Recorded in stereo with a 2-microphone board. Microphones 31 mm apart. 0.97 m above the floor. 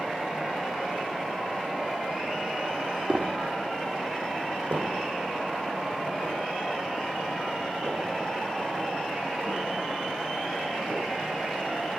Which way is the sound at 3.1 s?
35° right (ahead or behind).